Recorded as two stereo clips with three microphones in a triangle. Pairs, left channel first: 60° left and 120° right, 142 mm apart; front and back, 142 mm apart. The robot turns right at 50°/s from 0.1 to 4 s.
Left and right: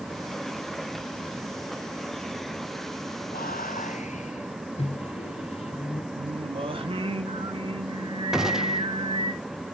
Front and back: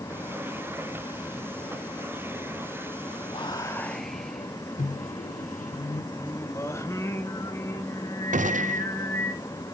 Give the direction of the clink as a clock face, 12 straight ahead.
No clink in this recording.